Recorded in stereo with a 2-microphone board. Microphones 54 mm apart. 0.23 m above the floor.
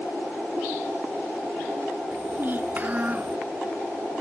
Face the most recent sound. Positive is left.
turn(degrees=-25)  # may be behind; listen again after turning